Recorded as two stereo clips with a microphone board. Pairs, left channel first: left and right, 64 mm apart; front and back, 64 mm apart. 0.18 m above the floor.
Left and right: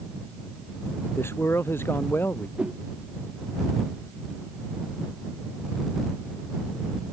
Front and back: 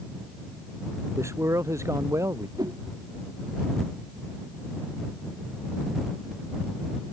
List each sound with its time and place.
1.2 s a man speaking: 140° left; by 2.5 s 145° left
2.6 s a whoosh: 165° right